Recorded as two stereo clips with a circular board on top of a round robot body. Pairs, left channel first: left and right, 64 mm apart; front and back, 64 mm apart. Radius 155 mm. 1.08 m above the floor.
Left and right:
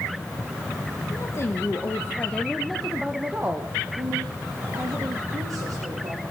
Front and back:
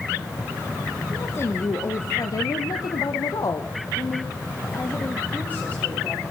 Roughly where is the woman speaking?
Ahead left.